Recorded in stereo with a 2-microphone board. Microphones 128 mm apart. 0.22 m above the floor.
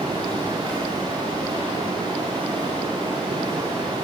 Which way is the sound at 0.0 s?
40° right (ahead or behind).